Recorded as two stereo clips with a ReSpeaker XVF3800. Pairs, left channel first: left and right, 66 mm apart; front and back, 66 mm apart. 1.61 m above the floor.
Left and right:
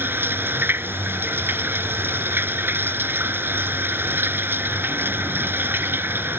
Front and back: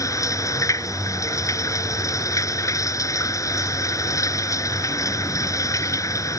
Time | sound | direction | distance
0.0 | running water | 35° right | ?